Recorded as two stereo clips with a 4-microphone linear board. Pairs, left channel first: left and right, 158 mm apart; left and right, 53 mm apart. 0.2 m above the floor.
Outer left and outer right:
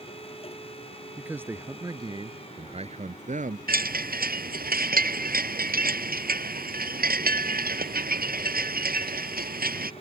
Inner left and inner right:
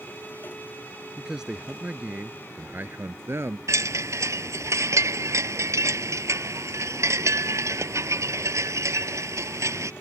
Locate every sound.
1.2 s a man speaking: 10° right (ahead or behind); by 3.6 s 50° right (ahead or behind)
3.7 s a chime: 60° right (ahead or behind)